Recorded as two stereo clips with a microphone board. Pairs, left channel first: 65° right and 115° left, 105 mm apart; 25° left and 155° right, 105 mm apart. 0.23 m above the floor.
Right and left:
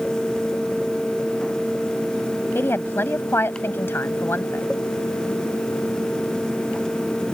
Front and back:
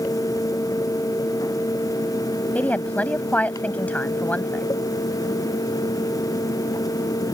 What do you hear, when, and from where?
2.5 s a woman speaking: 35° right